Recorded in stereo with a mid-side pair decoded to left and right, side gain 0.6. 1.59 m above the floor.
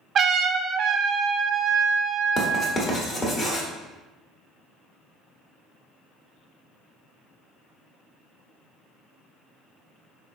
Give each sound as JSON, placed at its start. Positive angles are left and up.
{"t": 0.1, "sound": "a trumpet", "azimuth_deg": -40, "distance_m": 0.5}
{"t": 2.4, "sound": "writing", "azimuth_deg": 35, "distance_m": 1.1}